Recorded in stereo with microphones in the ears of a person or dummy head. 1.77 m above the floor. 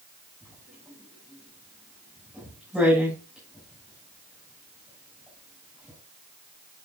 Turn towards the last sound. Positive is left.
turn(degrees=0)  # may be behind; listen again after turning